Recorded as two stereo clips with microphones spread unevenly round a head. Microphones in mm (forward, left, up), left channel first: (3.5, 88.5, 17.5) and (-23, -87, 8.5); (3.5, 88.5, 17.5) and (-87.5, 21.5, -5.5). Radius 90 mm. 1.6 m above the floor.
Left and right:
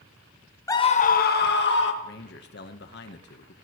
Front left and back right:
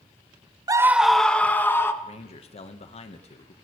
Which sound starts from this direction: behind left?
A scream, at 0.7 s.